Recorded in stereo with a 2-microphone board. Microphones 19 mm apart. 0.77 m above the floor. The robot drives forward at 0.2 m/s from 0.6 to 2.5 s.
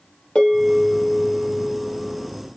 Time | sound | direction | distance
0.3 | a bell | 55° left (ahead or behind) | 1.5 m